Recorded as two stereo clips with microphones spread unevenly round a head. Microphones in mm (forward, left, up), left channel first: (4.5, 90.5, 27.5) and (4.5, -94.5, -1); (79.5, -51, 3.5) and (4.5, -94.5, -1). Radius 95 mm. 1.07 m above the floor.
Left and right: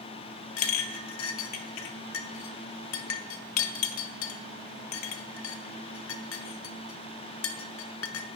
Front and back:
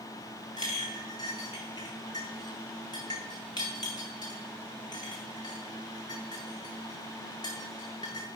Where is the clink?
95° left, 0.5 m.